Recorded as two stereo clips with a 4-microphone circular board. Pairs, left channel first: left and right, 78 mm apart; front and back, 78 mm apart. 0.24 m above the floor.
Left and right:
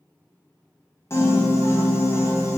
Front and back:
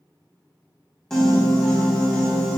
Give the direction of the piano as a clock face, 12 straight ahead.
9 o'clock.